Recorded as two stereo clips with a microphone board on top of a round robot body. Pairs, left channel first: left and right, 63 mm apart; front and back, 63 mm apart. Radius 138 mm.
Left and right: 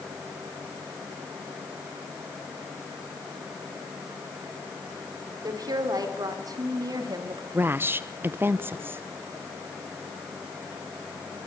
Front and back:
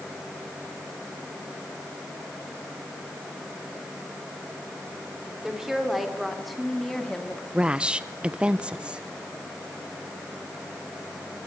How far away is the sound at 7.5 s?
About 0.9 m.